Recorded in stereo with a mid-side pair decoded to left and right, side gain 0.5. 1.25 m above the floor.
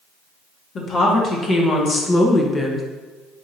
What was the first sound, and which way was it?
A woman speaking, 50° left.